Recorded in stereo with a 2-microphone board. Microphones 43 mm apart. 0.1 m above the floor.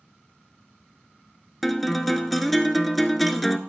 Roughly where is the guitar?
Centre.